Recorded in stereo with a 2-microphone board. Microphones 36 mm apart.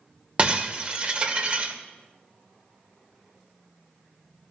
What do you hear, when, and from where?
0.4 s breaking glass: 30° right (ahead or behind), 2 m